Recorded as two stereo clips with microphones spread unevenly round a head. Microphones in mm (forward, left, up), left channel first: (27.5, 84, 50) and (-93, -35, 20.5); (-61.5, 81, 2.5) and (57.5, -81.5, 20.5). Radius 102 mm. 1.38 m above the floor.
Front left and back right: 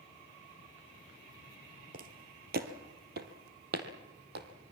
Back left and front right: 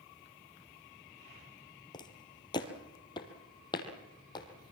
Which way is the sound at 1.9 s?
165° right.